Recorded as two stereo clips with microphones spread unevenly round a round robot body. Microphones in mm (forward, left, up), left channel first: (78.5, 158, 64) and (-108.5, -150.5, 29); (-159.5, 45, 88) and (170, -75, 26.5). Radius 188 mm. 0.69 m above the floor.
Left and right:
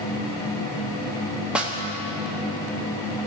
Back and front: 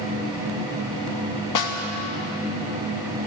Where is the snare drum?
160° left, 1.4 m.